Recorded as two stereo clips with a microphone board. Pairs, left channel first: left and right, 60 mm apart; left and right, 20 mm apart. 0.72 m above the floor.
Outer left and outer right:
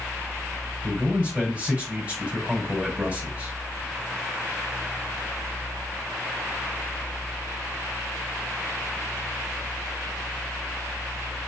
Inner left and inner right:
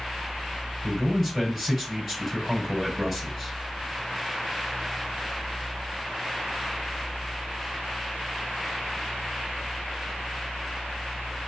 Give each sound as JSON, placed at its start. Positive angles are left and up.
{"t": 0.8, "sound": "a man speaking", "side_deg": -20, "distance_m": 5.0}